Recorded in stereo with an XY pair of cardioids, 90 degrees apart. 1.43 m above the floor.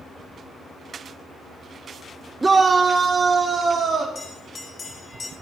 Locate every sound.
2.4 s a shout: 20° right, 0.8 m; by 4.0 s 70° right, 2.5 m
4.2 s a bell: 50° left, 3.5 m